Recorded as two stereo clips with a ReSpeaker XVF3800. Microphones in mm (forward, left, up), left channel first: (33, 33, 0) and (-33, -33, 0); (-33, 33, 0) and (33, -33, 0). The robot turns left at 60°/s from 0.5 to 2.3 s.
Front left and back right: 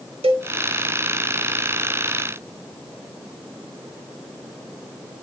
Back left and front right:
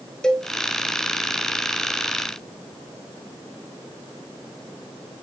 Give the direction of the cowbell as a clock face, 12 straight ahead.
5 o'clock.